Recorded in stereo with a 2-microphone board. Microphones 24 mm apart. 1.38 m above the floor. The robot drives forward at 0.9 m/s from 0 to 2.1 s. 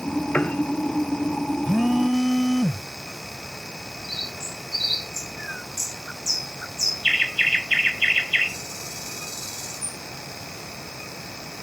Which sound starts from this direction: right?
A phone buzzing, at 1.6 s.